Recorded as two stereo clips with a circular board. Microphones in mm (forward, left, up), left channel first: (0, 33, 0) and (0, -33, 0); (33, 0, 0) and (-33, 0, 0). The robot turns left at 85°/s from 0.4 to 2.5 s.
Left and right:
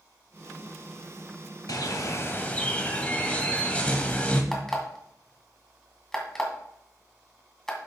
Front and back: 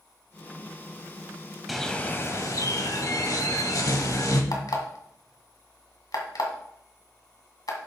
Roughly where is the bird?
Left.